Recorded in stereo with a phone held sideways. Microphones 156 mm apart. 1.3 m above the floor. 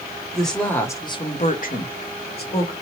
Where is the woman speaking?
Centre (ahead or behind), 1.1 m; by 2.7 s 70° left (ahead or behind), 1.1 m.